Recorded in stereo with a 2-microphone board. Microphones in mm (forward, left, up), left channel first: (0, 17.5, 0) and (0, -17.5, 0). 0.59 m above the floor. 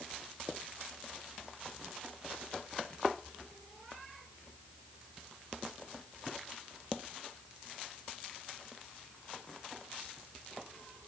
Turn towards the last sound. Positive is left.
No sound to turn to.